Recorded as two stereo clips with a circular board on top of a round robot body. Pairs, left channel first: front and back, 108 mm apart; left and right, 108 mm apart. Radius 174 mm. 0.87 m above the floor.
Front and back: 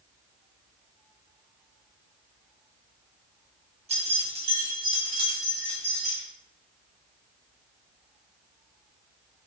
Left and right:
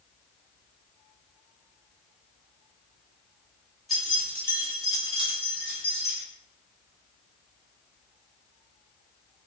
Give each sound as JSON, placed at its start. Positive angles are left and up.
{"t": 3.9, "sound": "keys jangling", "azimuth_deg": 180, "distance_m": 1.4}